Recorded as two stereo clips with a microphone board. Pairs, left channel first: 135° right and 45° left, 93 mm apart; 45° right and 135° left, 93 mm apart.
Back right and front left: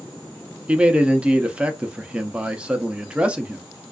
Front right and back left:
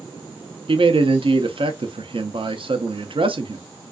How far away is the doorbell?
No doorbell in this recording.